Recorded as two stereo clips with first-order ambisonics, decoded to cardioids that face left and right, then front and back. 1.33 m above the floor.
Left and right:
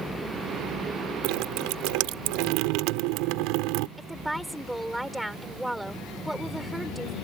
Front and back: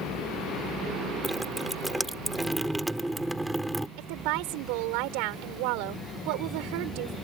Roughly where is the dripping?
Right.